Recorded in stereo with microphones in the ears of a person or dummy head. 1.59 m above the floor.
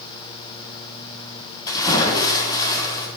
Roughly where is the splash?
Left.